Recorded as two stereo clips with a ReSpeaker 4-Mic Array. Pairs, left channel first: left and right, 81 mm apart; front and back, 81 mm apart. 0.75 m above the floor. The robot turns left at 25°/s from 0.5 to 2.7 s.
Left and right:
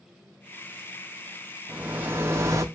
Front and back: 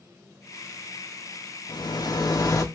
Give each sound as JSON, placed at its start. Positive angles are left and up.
{"t": 1.7, "sound": "a rattle", "azimuth_deg": -15, "distance_m": 0.6}